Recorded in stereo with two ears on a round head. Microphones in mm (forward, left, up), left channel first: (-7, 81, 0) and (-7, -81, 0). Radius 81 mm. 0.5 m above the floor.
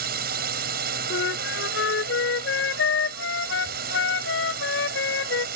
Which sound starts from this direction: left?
A flute, at 1.1 s.